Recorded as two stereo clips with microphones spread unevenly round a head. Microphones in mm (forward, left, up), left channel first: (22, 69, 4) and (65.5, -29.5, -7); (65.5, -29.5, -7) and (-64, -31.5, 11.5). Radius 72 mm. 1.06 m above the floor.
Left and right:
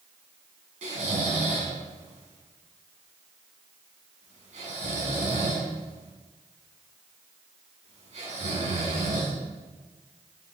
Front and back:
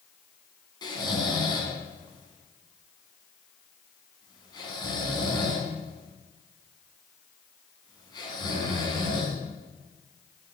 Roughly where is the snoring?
Ahead right.